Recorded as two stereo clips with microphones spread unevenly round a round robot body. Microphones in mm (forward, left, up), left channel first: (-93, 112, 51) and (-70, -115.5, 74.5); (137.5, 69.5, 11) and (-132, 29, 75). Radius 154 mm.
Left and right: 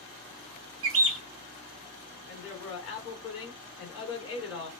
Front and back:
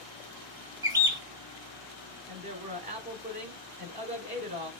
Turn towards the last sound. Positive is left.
turn(degrees=115)